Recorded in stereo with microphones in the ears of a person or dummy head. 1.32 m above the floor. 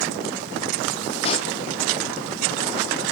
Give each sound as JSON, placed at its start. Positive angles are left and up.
{"t": 1.2, "sound": "a pop", "side_deg": 30, "distance_m": 0.6}